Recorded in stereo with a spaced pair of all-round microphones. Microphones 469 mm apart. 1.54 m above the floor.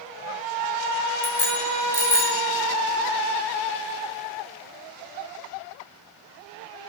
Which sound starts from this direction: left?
A bicycle bell, at 1.2 s.